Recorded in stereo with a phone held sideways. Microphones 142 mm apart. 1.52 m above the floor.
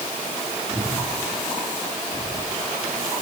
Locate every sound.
0.7 s breathing: 10° left (ahead or behind), 4 m